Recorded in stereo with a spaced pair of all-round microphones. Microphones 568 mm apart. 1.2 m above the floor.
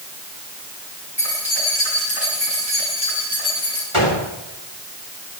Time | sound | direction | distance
1.2 | keys jangling | 50° left (ahead or behind) | 8.5 m
3.9 | a gunshot | 60° left (ahead or behind) | 3.5 m